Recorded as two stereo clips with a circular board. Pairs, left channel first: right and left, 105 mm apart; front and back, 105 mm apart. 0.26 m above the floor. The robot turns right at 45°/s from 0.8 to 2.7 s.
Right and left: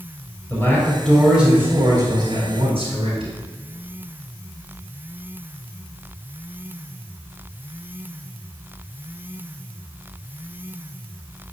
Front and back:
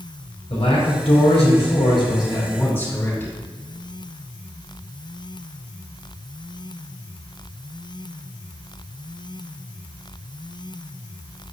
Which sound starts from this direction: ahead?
A man speaking, at 0.5 s.